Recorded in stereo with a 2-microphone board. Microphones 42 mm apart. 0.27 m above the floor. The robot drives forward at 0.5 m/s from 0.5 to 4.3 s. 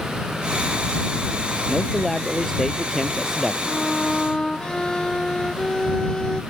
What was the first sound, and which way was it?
A man speaking, 5° left (ahead or behind).